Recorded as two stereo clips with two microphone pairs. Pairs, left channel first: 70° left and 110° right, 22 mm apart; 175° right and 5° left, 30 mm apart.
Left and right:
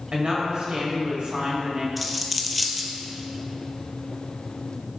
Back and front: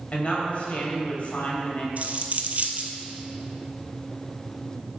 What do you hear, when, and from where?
0.1 s a woman speaking: 135° right, 2 m
2.0 s a dropped coin: 25° right, 0.8 m